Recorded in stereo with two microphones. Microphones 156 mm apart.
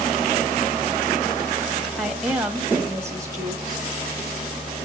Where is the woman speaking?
Centre (ahead or behind), 2.0 m; by 3.9 s 25° right (ahead or behind), 2.5 m.